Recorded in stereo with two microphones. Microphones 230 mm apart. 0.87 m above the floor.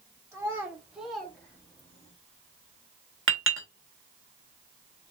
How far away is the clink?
About 1.1 m.